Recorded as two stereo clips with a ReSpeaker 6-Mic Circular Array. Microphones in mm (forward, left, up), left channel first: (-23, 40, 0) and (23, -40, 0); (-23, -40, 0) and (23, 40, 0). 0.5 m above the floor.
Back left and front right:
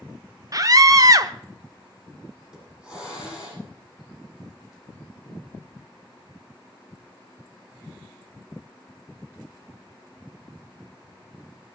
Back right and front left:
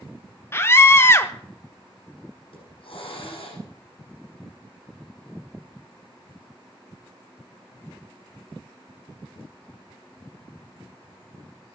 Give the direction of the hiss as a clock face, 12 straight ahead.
5 o'clock.